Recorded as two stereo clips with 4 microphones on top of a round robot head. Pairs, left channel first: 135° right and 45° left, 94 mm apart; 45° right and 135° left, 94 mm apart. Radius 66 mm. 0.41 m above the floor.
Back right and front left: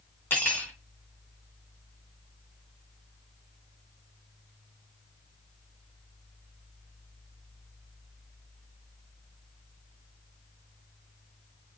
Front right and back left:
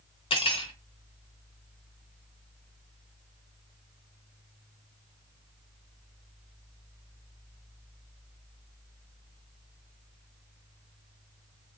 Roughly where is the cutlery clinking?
Ahead right.